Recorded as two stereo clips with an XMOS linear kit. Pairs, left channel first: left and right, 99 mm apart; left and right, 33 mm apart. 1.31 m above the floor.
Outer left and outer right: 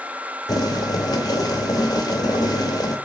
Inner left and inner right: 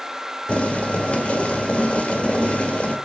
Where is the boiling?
40° left (ahead or behind), 1.3 m.